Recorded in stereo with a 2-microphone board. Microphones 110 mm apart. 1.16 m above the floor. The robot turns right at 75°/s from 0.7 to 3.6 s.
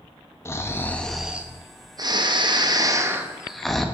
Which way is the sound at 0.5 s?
145° left.